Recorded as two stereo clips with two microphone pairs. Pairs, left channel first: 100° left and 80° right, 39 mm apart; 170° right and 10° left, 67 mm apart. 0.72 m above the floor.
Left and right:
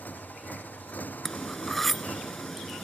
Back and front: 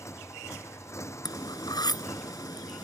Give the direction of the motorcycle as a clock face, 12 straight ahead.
7 o'clock.